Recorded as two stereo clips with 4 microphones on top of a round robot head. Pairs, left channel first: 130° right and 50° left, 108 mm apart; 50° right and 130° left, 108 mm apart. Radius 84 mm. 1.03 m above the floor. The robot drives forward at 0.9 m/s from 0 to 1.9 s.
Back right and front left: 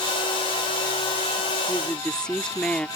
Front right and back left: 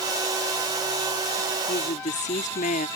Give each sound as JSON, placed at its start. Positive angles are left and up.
{"t": 1.7, "sound": "a woman speaking", "azimuth_deg": -45}